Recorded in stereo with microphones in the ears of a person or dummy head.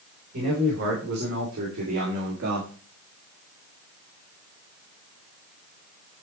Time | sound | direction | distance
0.3 | a man speaking | 65° right (ahead or behind) | 4 m